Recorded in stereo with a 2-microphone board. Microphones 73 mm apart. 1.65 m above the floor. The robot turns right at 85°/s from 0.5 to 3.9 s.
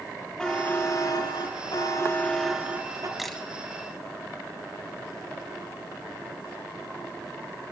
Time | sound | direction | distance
0.4 | a buzzer | 10° left | 4 m
3.2 | a camera shutter | 5° right (ahead or behind) | 2 m